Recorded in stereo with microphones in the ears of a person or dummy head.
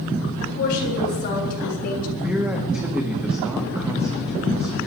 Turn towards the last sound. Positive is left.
turn(degrees=-10)  # may be behind; listen again after turning